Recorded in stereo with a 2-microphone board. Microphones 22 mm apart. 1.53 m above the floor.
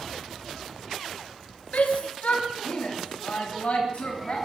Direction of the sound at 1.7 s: 90° left.